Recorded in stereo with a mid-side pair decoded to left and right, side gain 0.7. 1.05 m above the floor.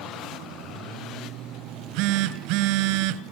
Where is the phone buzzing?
70° right, 2 m.